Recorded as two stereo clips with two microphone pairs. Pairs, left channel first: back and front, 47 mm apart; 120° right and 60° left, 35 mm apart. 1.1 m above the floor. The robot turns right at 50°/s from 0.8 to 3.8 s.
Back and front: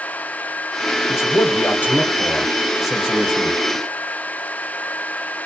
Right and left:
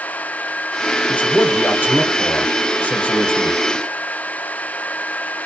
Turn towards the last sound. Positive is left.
turn(degrees=-35)